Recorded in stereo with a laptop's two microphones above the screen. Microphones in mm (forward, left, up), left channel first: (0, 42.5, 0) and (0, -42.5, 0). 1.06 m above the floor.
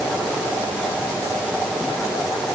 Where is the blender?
I don't hear a blender.